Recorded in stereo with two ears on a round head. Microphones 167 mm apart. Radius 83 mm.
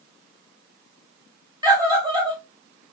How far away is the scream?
About 1.4 m.